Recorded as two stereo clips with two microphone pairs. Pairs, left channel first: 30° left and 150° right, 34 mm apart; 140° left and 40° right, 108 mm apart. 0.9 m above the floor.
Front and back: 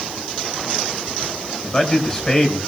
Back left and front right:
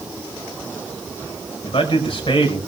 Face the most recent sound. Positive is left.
turn(degrees=100)